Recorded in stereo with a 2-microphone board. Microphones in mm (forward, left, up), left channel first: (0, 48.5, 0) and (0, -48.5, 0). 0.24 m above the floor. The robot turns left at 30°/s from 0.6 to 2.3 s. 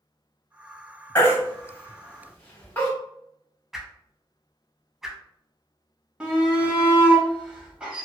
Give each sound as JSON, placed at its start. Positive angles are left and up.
{"t": 1.1, "sound": "a baby crying", "side_deg": 25, "distance_m": 0.9}
{"t": 3.7, "sound": "a whoosh", "side_deg": -5, "distance_m": 0.6}
{"t": 6.2, "sound": "a shout", "side_deg": -10, "distance_m": 0.9}